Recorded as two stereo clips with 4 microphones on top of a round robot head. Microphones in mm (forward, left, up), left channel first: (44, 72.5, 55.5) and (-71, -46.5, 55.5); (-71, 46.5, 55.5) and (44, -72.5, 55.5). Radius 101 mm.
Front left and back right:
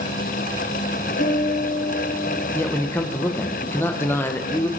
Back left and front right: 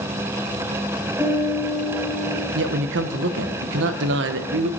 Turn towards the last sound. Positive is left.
turn(degrees=-30)